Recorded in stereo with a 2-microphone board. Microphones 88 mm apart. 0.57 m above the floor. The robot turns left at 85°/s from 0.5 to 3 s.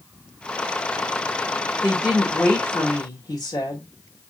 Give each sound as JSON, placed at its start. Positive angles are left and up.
{"t": 1.8, "sound": "a woman speaking", "azimuth_deg": -150, "distance_m": 1.4}